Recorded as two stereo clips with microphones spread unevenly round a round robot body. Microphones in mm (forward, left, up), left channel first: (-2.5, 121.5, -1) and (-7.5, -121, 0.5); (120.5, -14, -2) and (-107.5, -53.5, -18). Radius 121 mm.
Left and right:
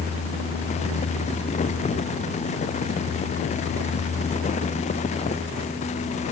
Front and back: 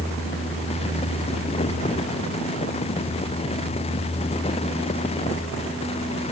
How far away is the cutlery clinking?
No cutlery clinking in this recording.